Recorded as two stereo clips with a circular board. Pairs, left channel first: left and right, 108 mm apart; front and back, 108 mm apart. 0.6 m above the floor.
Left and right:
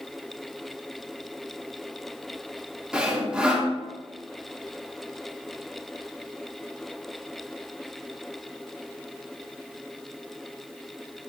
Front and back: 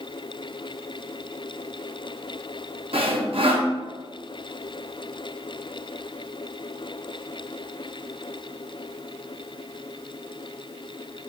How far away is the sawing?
About 0.5 m.